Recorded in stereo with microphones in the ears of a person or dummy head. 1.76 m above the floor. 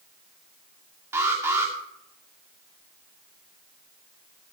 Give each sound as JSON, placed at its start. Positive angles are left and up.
{"t": 1.1, "sound": "an alarm", "side_deg": -10, "distance_m": 2.5}